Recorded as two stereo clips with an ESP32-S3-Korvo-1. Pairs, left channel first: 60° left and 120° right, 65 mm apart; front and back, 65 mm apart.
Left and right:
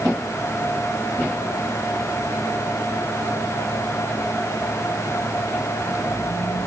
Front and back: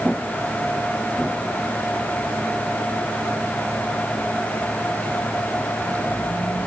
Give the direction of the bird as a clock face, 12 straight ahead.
No bird in this recording.